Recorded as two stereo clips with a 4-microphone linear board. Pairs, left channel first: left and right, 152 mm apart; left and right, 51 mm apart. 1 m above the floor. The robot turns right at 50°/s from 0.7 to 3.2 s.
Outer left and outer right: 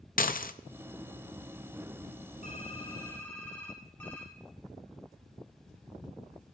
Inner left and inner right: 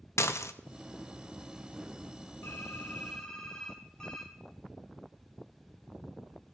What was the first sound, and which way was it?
Dishes clattering, 65° left (ahead or behind).